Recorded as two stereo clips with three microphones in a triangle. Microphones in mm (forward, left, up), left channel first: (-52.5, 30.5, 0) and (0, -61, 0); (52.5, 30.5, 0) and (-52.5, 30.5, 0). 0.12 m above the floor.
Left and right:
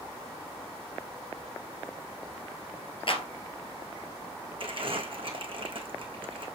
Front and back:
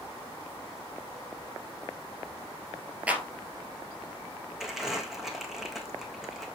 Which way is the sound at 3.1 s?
105° left.